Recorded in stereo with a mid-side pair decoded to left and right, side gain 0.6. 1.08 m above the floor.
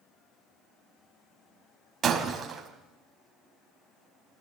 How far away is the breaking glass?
About 4 m.